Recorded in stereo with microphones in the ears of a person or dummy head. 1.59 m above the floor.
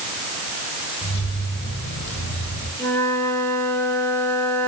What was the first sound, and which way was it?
Keys jangling, 65° left (ahead or behind).